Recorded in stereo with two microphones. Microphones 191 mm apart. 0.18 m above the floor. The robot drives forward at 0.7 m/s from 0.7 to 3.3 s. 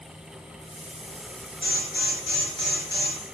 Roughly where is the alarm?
Left.